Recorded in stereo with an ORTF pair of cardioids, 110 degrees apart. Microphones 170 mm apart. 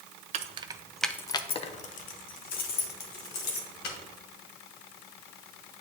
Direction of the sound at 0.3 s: 45° right.